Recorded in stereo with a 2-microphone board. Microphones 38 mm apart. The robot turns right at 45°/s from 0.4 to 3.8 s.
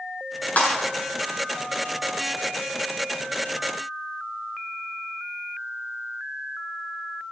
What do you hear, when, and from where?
0.6 s breaking glass: 45° left (ahead or behind), 6.5 m; by 0.8 s 50° left (ahead or behind), 6.5 m